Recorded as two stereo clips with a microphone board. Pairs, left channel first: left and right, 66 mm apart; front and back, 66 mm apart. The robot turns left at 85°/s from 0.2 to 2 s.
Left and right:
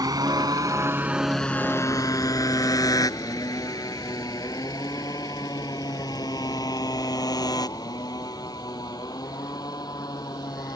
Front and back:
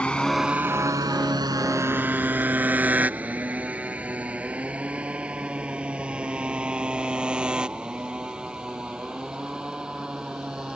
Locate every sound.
0.0 s a motorcycle: 75° right; by 10.8 s 100° left